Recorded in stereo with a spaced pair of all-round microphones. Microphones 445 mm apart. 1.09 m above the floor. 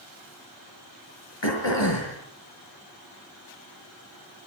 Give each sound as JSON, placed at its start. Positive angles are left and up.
{"t": 1.4, "sound": "throat clearing", "side_deg": 65, "distance_m": 5.5}